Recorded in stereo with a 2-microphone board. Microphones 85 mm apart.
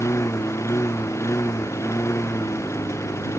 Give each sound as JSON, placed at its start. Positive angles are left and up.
{"t": 0.0, "sound": "a lawn mower", "side_deg": 30}